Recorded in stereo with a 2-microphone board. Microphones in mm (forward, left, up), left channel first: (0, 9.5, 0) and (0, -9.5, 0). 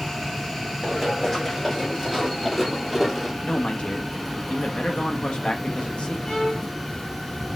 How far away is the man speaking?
About 1.2 m.